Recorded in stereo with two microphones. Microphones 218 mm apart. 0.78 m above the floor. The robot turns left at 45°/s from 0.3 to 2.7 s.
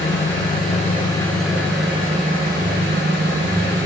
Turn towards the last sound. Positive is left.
turn(degrees=-55)